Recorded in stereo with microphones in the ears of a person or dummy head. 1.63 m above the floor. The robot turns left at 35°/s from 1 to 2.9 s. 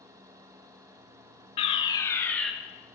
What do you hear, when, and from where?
1.6 s a fire alarm: 45° left, 1.2 m; by 2.5 s 10° left, 1.2 m